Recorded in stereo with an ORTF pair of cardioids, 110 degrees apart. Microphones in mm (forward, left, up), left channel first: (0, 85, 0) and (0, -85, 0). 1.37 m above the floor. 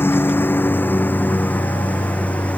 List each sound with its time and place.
0.0 s a lawn mower: 10° left